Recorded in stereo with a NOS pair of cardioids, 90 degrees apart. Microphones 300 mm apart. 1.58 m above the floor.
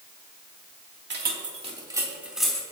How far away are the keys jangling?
About 2.5 m.